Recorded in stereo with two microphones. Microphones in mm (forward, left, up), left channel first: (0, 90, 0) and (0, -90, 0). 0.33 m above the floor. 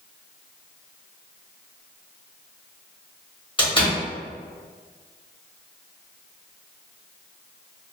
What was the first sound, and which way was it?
A door slam, 30° left (ahead or behind).